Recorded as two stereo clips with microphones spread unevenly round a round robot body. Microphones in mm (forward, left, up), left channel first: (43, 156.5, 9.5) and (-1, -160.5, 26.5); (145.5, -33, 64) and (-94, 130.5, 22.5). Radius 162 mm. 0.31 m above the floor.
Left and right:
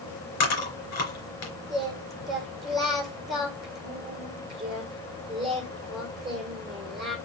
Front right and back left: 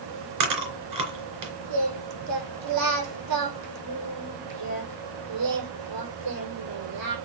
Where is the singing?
170° left, 6 m.